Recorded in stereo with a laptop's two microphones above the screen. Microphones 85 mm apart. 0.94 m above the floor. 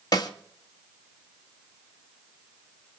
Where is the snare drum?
50° left (ahead or behind), 2.5 m.